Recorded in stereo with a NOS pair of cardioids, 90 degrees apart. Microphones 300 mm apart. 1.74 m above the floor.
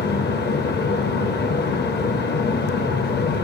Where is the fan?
35° left, 0.9 m.